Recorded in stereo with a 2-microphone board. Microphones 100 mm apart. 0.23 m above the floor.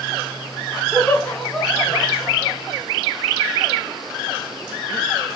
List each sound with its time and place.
0.9 s laughter: centre (ahead or behind), 1.5 m; by 2.6 s 20° left (ahead or behind), 1.5 m